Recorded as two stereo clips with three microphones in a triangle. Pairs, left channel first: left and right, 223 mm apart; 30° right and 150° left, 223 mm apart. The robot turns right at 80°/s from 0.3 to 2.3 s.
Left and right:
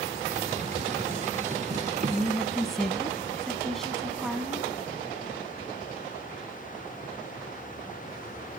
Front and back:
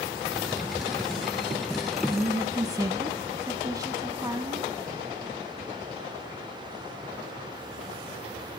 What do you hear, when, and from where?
2.1 s a woman speaking: 155° left, 1.0 m; by 4.7 s 175° left, 1.0 m